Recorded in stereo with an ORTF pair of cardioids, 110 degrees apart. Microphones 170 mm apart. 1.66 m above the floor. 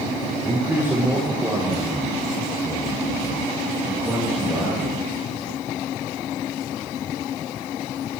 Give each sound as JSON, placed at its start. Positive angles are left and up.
{"t": 0.4, "sound": "a man speaking", "azimuth_deg": -15, "distance_m": 4.0}